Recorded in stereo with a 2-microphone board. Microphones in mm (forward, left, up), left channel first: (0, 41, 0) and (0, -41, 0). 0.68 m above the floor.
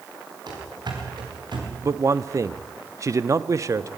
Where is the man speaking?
40° right (ahead or behind), 0.7 m.